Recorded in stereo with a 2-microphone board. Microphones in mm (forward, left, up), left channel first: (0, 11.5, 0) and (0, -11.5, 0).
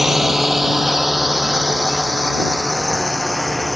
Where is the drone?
20° right (ahead or behind); by 3.8 s centre (ahead or behind).